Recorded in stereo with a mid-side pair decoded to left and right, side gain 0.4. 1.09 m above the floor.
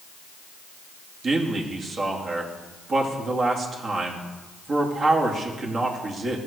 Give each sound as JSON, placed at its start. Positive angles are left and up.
{"t": 1.2, "sound": "a man speaking", "azimuth_deg": -50, "distance_m": 2.0}